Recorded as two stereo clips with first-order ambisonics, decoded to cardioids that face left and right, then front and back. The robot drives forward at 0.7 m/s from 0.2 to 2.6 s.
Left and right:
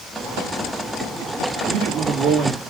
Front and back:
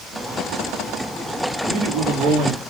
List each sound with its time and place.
1.7 s a man speaking: 135° right, 3 m; by 2.6 s 140° right, 3.5 m